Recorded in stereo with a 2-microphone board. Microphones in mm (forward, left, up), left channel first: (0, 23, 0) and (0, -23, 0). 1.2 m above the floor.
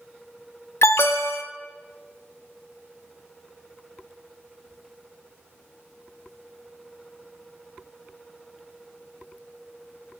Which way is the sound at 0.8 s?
65° left (ahead or behind).